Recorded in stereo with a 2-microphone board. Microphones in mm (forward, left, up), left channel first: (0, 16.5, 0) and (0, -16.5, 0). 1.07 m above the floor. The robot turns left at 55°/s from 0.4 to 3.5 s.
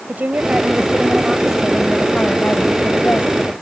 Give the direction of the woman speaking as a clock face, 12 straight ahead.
4 o'clock.